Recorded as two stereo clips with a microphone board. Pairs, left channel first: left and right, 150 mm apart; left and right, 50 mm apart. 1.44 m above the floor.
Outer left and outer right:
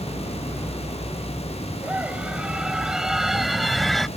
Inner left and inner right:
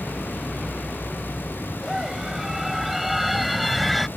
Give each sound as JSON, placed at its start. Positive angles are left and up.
{"t": 1.8, "sound": "a scream", "side_deg": -10}